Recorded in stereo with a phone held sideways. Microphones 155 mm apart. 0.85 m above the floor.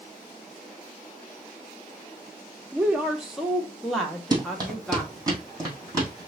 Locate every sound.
2.7 s a woman speaking: 10° right (ahead or behind), 0.7 m; by 5.3 s 5° left (ahead or behind), 1.6 m
4.3 s running footsteps: 25° right (ahead or behind), 1.9 m; by 6.3 s 20° right (ahead or behind), 3 m